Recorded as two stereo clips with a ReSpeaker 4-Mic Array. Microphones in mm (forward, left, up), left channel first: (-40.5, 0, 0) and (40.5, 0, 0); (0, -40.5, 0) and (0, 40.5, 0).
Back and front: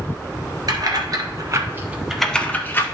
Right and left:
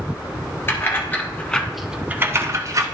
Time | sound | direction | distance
0.7 | keys jangling | 30° right | 1.5 m